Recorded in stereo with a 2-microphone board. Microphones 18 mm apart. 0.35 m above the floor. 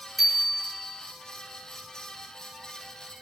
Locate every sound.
0.2 s a bicycle bell: centre (ahead or behind), 4.5 m